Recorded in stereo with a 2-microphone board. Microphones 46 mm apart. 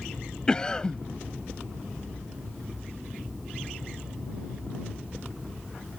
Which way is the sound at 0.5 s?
20° left (ahead or behind).